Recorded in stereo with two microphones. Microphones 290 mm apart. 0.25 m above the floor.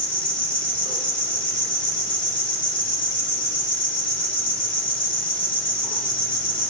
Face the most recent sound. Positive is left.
turn(degrees=5)  # may be behind; listen again after turning